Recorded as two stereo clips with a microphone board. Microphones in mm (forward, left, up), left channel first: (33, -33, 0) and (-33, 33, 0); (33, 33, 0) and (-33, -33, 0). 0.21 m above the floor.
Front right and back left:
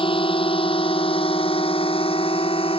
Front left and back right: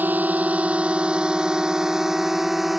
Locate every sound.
0.0 s a drone: 65° right; by 2.8 s 45° right